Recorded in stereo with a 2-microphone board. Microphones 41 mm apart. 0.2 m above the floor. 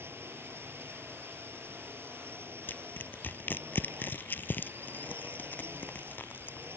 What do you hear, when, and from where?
0.0 s a drone: 75° right (ahead or behind)
2.7 s crushing: 50° left (ahead or behind)